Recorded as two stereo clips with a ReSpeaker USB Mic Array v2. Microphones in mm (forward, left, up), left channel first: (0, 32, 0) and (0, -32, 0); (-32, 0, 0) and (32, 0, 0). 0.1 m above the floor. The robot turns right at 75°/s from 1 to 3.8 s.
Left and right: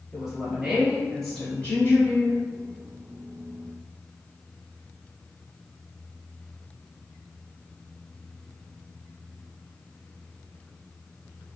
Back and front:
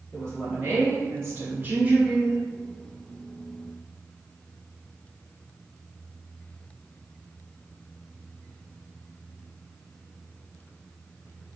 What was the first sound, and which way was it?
A woman speaking, 10° right.